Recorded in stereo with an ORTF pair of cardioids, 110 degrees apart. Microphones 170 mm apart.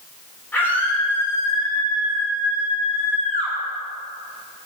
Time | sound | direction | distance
0.5 | a scream | 10° left | 4.5 m